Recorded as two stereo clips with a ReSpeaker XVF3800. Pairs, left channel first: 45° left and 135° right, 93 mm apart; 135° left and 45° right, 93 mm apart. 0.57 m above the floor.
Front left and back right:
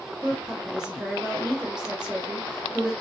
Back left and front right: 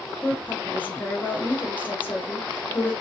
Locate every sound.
0.2 s a woman speaking: 155° left, 1.0 m